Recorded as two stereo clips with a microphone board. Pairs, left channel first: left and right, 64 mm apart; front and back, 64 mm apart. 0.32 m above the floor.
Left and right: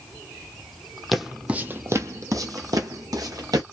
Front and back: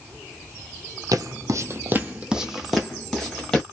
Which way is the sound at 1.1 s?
Straight behind.